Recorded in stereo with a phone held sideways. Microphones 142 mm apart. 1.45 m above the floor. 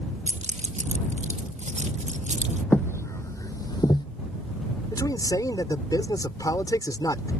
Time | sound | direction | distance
0.3 | keys jangling | 55° right (ahead or behind) | ?
2.7 | footsteps | 15° left (ahead or behind) | ?
4.9 | a man speaking | 25° left (ahead or behind) | ?